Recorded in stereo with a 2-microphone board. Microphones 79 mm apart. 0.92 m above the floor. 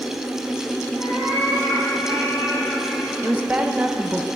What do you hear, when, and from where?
1.0 s a cat meowing: 65° left (ahead or behind), 4 m; by 3.1 s 30° left (ahead or behind), 5 m
3.2 s a woman speaking: 20° right (ahead or behind), 0.6 m